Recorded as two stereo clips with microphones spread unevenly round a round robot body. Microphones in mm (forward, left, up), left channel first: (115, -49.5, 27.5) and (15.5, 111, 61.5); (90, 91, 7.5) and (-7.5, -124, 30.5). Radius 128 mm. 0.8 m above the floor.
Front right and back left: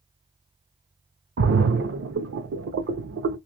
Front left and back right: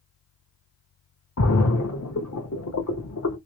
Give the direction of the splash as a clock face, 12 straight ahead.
8 o'clock.